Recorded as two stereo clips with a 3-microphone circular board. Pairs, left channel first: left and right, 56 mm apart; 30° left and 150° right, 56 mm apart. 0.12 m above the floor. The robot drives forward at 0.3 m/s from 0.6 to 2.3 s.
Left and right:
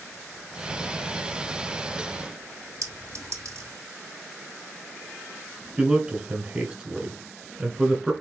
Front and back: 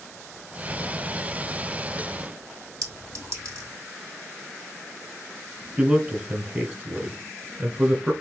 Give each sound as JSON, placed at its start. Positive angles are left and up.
{"t": 2.8, "sound": "a clink", "azimuth_deg": -125, "distance_m": 2.5}
{"t": 5.8, "sound": "a man speaking", "azimuth_deg": -140, "distance_m": 1.1}